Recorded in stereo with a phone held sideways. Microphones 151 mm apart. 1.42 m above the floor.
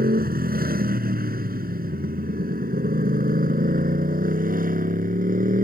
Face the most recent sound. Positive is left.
turn(degrees=-65)  # may be behind; listen again after turning